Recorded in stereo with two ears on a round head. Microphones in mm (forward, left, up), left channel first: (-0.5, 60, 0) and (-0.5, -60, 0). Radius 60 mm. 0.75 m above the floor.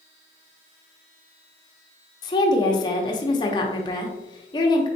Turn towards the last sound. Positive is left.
turn(degrees=30)  # may be behind; listen again after turning